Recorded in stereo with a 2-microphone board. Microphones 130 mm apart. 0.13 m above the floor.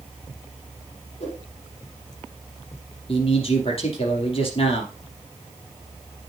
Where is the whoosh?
50° left (ahead or behind), 5 m.